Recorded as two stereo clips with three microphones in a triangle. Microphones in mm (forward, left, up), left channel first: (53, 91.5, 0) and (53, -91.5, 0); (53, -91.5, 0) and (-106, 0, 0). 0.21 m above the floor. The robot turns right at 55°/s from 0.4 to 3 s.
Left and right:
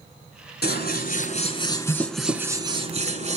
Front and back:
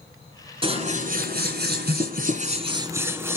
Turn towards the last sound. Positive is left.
turn(degrees=-135)